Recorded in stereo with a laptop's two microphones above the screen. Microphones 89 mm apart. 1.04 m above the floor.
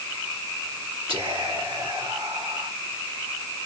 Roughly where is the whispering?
Right.